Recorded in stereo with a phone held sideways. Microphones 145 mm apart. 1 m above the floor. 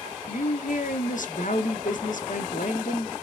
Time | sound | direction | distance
0.3 | a woman speaking | 65° left (ahead or behind) | 0.6 m